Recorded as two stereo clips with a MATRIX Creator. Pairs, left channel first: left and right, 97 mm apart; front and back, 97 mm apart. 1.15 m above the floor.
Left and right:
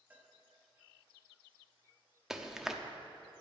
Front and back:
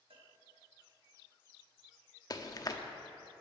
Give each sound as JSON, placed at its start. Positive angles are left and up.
{"t": 0.1, "sound": "a cowbell", "azimuth_deg": -165, "distance_m": 1.4}
{"t": 2.3, "sound": "chewing", "azimuth_deg": -5, "distance_m": 0.7}